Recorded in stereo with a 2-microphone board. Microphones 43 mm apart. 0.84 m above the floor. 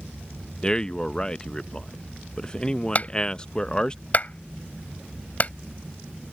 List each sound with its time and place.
0.6 s a man speaking: 20° left (ahead or behind)
3.0 s a clap: 40° left (ahead or behind)